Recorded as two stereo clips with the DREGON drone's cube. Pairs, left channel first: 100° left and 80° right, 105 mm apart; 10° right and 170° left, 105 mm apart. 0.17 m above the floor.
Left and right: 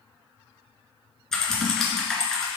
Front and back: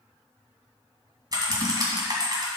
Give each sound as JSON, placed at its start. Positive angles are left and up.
{"t": 1.3, "sound": "typing on a keyboard", "azimuth_deg": -175, "distance_m": 1.9}